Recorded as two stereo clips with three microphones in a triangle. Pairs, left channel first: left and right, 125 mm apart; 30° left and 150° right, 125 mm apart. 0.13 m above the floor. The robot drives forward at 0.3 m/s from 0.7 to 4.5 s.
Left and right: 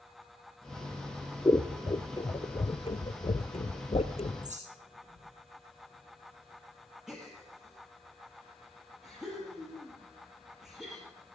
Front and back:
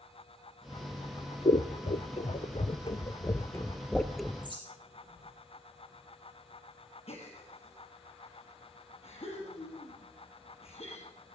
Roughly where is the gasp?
Ahead.